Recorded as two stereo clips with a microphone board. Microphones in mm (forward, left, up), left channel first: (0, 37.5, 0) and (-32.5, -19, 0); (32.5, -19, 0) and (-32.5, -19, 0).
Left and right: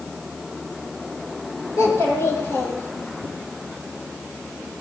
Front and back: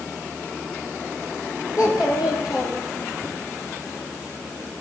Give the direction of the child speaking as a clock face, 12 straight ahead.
11 o'clock.